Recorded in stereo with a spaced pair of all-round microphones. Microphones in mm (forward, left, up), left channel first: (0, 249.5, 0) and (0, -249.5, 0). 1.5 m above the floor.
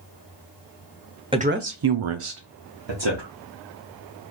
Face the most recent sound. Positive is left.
turn(degrees=-55)  # may be behind; listen again after turning